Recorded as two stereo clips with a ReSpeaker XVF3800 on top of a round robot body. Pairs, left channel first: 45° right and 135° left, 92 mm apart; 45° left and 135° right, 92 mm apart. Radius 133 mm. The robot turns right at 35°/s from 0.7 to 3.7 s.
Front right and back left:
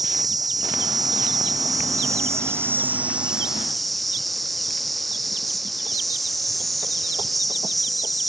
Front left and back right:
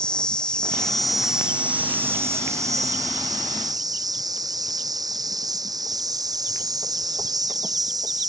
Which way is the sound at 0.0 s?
120° left.